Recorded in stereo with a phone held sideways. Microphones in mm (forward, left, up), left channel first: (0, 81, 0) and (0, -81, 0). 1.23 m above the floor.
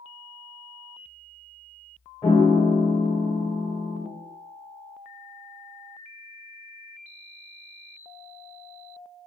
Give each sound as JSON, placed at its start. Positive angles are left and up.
{"t": 2.2, "sound": "a piano", "side_deg": 30, "distance_m": 1.1}